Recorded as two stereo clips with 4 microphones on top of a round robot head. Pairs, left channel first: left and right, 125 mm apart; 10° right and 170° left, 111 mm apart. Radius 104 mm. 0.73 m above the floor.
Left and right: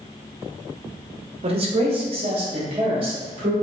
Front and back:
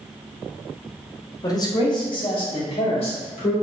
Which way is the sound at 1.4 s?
65° right.